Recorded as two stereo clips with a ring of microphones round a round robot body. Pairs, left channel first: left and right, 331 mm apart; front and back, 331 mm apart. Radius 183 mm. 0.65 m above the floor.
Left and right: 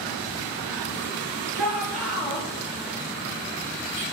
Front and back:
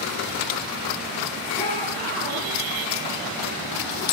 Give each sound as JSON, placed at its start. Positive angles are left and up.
{"t": 1.5, "sound": "a shout", "azimuth_deg": -80, "distance_m": 8.5}